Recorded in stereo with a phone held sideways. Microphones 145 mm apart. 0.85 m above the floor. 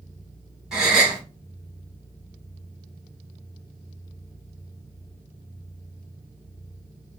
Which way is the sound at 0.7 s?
5° right (ahead or behind).